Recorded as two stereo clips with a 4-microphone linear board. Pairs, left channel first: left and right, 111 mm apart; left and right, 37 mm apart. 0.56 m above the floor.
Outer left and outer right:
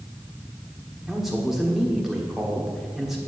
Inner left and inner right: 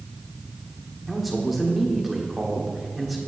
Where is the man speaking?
5° right (ahead or behind), 1.2 m.